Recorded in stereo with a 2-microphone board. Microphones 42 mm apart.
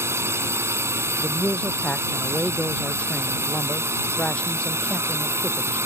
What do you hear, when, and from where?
0.0 s a drone: 75° right (ahead or behind)
1.2 s a man speaking: 25° left (ahead or behind)